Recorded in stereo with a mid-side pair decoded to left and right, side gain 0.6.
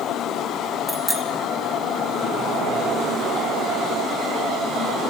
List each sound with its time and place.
0.9 s a bicycle bell: 5° right, 3.5 m